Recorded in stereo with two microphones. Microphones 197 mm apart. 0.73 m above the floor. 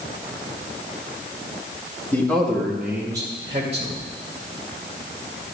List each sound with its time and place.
2.1 s a man speaking: 10° left (ahead or behind), 1.3 m; by 4.0 s 40° right (ahead or behind), 1.1 m